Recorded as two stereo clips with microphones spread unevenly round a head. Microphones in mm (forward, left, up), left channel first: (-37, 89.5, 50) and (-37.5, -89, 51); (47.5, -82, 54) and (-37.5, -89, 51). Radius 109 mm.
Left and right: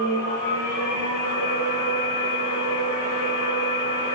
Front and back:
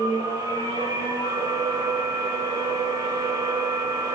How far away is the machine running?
About 6 m.